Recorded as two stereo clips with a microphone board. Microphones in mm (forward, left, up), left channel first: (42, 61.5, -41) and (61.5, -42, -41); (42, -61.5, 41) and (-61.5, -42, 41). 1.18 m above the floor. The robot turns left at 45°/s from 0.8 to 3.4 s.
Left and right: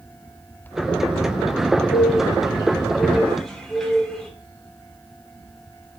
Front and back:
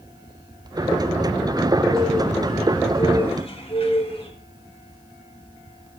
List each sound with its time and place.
1.9 s a bird: 80° left, 3 m; by 4.3 s 15° left, 3 m